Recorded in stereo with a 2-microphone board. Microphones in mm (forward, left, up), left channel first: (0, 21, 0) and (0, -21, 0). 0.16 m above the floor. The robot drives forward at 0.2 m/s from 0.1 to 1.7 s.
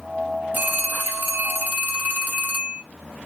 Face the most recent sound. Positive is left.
turn(degrees=-40)  # may be behind; listen again after turning